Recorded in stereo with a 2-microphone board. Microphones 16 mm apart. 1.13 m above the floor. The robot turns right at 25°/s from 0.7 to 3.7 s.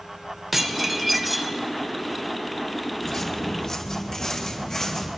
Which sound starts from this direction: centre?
Dishes clattering, at 0.5 s.